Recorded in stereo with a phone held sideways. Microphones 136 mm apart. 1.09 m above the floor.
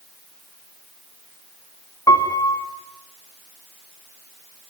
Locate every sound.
2.1 s a piano: 25° left (ahead or behind), 3 m